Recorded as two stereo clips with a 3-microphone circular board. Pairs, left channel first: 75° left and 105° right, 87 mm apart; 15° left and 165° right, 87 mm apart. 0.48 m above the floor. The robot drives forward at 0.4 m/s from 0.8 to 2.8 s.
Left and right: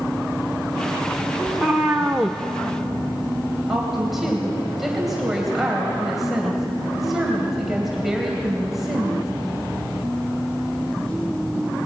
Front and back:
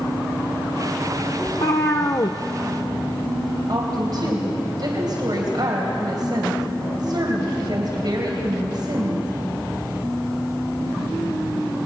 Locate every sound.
1.5 s a cat meowing: 15° right, 1.3 m; by 2.4 s 20° right, 1.0 m
3.7 s a woman speaking: 170° left, 3 m